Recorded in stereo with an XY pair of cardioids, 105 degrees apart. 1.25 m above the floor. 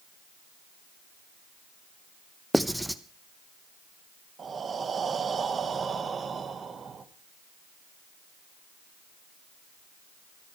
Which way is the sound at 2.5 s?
5° right.